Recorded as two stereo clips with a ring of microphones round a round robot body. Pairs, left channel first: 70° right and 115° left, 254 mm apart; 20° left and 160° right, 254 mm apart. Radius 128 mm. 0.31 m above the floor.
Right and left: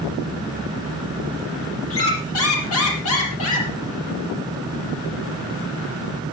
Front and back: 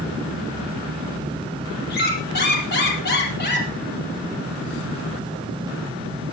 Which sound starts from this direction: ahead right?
A squeak, at 1.9 s.